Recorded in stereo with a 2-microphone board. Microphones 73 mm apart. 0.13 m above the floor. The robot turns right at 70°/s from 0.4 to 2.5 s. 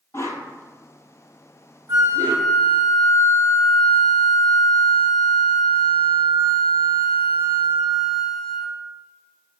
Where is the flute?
85° right, 1.1 m; by 8.7 s 45° right, 1.1 m.